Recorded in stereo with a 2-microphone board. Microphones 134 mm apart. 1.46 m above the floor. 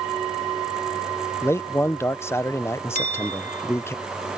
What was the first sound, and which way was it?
A man speaking, 20° left (ahead or behind).